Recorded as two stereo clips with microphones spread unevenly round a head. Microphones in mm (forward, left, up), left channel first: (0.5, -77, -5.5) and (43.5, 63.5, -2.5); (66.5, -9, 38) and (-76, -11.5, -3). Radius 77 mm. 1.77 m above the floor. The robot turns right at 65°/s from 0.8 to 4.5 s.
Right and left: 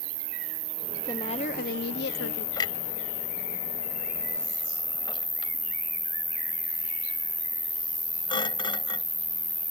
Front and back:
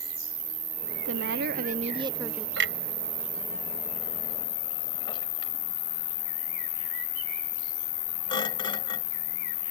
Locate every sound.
0.0 s an insect: 105° left; by 9.7 s 15° right
1.1 s a woman speaking: straight behind; by 2.5 s 90° right
2.6 s a clunk: 175° right; by 9.1 s 50° right